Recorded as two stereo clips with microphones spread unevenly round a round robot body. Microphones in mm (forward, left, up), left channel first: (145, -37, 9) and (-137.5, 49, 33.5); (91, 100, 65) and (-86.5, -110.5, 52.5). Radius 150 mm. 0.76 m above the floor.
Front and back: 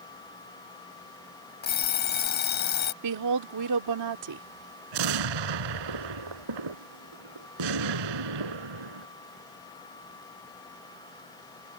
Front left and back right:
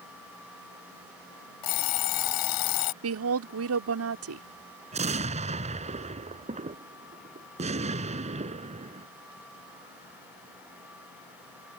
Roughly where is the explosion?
Behind.